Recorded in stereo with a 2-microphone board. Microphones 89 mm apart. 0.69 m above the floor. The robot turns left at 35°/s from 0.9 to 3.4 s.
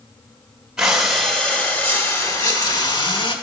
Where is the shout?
I don't hear a shout.